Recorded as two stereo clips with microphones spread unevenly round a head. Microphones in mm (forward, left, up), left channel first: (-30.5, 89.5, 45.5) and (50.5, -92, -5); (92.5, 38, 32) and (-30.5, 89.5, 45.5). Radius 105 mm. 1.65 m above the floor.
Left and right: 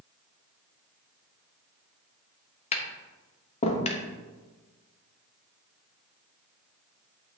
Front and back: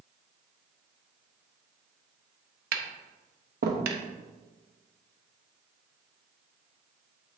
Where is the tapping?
170° left, 0.8 m.